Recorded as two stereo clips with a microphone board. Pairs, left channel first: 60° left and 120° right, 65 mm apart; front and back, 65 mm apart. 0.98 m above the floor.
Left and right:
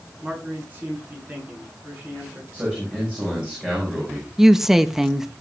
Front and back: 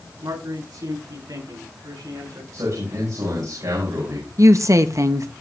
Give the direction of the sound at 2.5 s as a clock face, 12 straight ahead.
6 o'clock.